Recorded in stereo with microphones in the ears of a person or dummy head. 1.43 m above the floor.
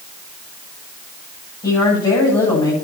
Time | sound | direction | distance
1.6 | a woman speaking | 25° left (ahead or behind) | 10 m